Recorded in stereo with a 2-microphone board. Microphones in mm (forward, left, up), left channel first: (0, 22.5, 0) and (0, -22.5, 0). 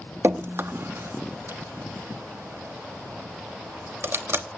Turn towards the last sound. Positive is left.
turn(degrees=-65)  # may be behind; listen again after turning